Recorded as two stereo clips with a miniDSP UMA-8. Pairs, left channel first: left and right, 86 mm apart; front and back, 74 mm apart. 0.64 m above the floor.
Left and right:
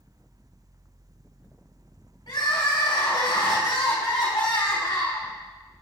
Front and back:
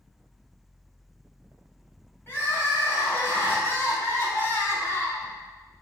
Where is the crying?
60° left, 2.5 m.